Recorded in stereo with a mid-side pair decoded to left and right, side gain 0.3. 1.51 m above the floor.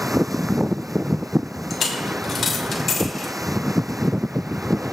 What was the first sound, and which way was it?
A dropped coin, 60° left.